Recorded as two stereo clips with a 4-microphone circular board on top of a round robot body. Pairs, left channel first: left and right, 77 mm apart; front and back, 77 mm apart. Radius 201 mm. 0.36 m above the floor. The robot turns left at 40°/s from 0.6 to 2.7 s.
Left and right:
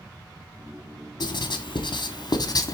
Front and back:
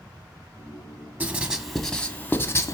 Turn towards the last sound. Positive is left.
turn(degrees=55)